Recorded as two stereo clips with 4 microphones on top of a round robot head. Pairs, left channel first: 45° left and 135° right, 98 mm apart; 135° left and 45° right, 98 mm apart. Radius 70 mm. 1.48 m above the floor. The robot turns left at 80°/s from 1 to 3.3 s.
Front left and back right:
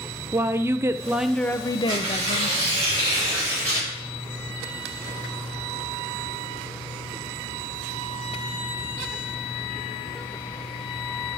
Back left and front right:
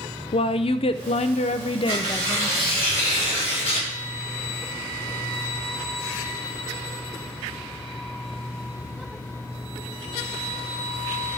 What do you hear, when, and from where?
0.3 s a woman speaking: 160° left, 0.5 m; by 2.6 s 35° left, 0.5 m
1.9 s tearing paper: 75° right, 5.5 m; by 3.9 s 165° left, 5.5 m